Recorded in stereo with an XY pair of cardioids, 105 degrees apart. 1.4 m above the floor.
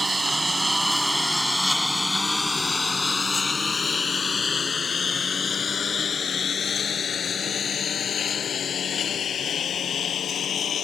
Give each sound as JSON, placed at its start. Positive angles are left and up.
{"t": 0.0, "sound": "a lawn mower", "azimuth_deg": -20}